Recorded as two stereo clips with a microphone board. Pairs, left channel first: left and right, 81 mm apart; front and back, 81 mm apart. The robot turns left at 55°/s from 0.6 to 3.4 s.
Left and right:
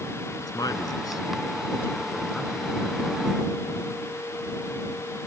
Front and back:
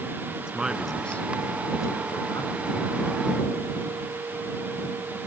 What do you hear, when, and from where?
0.4 s a man speaking: 105° left; by 2.5 s 5° right